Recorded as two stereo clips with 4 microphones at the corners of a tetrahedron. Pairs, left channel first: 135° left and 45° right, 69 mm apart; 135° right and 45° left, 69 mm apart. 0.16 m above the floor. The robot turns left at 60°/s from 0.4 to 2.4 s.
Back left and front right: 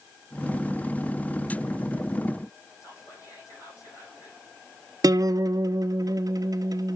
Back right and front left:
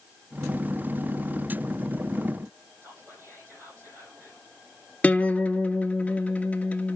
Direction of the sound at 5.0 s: 65° right.